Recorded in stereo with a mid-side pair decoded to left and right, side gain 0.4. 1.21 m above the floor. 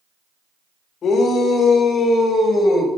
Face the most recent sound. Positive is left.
turn(degrees=60)